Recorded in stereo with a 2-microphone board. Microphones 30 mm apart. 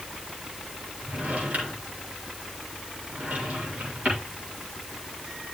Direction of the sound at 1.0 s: 55° right (ahead or behind).